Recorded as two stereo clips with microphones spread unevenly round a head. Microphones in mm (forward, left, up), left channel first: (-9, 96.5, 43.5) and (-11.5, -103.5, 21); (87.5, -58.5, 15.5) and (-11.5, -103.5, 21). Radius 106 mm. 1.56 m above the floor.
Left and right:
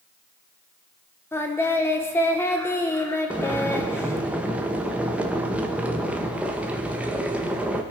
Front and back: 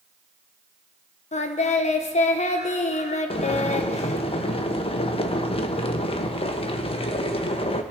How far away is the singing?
About 1.2 m.